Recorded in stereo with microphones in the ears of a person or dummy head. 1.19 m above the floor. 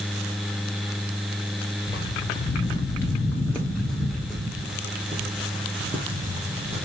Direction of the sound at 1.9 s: 20° left (ahead or behind).